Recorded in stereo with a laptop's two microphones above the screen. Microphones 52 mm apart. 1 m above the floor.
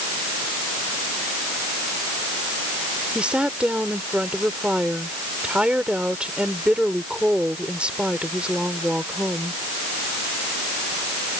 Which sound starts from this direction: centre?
A woman speaking, at 3.1 s.